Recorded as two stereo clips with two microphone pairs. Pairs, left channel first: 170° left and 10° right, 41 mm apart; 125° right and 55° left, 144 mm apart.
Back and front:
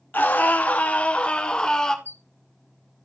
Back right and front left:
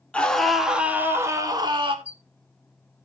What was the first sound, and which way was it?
A scream, 155° left.